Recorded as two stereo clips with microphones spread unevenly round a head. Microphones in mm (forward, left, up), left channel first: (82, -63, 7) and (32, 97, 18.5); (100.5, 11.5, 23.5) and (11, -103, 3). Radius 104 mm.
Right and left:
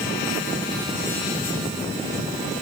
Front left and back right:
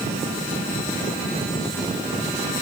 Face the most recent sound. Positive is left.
No sound to turn to.